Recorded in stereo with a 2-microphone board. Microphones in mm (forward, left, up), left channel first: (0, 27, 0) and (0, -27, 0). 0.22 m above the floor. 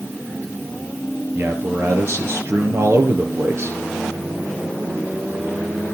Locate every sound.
1.4 s a man speaking: 55° right (ahead or behind), 4.5 m